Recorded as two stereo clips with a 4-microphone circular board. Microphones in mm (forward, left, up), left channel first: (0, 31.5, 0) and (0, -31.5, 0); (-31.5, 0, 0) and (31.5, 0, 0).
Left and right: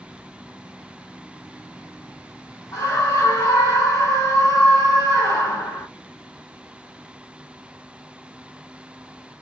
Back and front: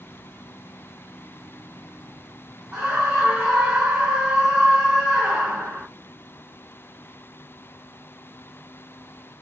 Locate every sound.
2.7 s a scream: 65° left, 0.6 m